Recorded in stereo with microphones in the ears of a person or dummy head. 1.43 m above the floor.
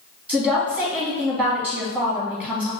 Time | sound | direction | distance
0.3 | a woman speaking | 10° right (ahead or behind) | 1.9 m